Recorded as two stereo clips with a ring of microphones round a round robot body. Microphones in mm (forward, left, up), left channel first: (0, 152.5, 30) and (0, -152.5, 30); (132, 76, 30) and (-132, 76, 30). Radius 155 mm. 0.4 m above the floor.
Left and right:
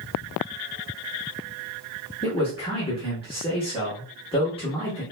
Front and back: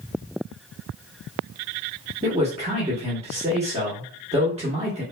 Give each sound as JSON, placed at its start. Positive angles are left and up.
{"t": 2.2, "sound": "a man speaking", "azimuth_deg": 145, "distance_m": 1.0}